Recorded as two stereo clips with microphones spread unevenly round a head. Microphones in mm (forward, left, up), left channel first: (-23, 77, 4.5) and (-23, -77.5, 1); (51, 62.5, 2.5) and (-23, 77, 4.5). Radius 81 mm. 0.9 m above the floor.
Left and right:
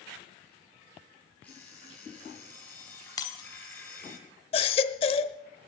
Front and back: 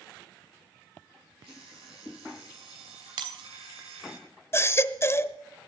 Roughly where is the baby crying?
Ahead left.